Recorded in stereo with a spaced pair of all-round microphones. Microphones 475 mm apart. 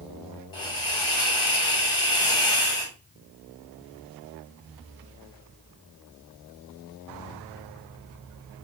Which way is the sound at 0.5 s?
75° left (ahead or behind).